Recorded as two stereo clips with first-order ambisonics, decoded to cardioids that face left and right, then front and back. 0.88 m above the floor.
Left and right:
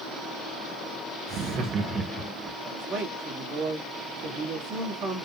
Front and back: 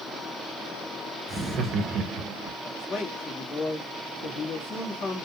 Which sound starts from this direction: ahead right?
A man speaking, at 2.6 s.